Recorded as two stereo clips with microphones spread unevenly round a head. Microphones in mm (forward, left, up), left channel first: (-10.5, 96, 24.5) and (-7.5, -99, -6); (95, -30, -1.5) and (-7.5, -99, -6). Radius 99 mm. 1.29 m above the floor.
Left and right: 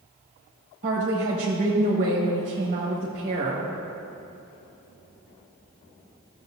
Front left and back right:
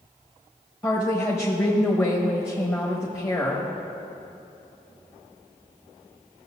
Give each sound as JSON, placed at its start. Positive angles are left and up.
{"t": 0.8, "sound": "a woman speaking", "azimuth_deg": -35, "distance_m": 1.3}